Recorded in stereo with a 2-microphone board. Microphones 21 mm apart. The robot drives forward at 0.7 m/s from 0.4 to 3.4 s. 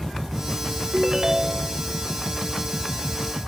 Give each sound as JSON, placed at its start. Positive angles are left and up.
{"t": 0.9, "sound": "a ringtone", "side_deg": -35}